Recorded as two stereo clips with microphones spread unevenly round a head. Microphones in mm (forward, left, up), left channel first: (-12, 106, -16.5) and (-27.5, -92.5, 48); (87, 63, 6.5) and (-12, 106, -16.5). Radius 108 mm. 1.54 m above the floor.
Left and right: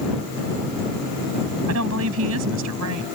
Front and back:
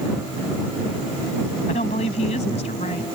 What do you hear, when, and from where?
1.7 s a woman speaking: 70° right; by 3.0 s 80° right